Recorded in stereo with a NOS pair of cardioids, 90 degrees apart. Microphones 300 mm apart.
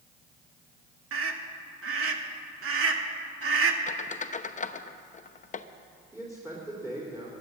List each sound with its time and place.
1.1 s a scream: 45° right, 2.0 m
3.9 s a squeak: 25° left, 0.7 m
6.1 s a man speaking: 10° right, 3.5 m